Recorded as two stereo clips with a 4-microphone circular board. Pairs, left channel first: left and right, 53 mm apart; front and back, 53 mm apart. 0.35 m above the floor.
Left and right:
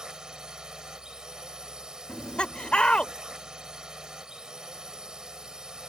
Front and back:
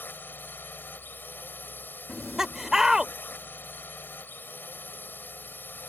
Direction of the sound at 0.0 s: 20° right.